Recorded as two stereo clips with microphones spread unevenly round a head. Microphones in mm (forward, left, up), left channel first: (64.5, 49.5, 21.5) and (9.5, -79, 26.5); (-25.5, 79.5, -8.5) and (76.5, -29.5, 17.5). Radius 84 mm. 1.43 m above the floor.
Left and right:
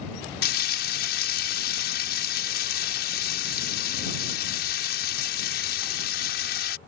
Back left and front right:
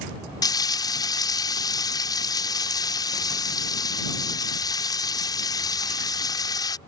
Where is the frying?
65° left.